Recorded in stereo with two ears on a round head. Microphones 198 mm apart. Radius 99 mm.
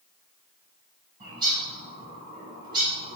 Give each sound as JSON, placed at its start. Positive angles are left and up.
{"t": 1.2, "sound": "a bird", "side_deg": -20, "distance_m": 3.0}